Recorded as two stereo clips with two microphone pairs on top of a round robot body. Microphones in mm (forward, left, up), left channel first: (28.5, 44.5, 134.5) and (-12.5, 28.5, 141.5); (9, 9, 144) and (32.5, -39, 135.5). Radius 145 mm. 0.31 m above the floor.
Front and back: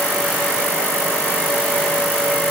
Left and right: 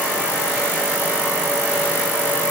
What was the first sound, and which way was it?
Only background noise.